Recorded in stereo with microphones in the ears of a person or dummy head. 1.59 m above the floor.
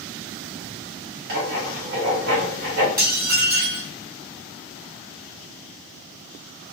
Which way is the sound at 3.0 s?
15° right (ahead or behind).